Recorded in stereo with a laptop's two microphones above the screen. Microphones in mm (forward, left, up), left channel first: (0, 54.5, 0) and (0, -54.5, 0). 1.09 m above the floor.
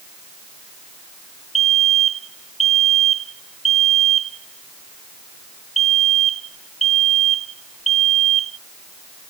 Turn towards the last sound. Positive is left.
turn(degrees=80)